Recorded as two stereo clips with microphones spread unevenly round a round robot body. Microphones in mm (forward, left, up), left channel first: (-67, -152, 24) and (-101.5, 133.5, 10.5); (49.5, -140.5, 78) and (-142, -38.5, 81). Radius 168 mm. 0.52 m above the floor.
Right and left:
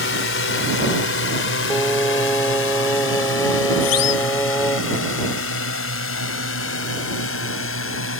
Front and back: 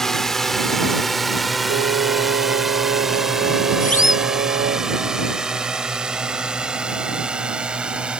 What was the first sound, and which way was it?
A drone, 115° right.